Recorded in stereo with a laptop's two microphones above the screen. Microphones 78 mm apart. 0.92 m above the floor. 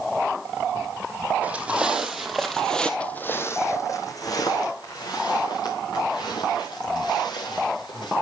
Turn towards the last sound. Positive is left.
turn(degrees=70)  # may be behind; listen again after turning